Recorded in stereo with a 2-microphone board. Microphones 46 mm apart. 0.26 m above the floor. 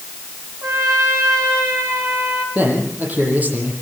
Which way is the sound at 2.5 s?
40° right (ahead or behind).